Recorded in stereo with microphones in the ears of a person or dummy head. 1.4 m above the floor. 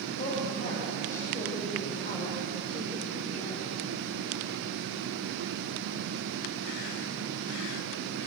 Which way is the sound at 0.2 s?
50° left (ahead or behind).